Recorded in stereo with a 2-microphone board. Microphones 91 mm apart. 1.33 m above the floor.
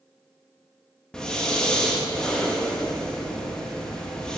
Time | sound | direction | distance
1.1 | breathing | 10° left (ahead or behind) | 1.9 m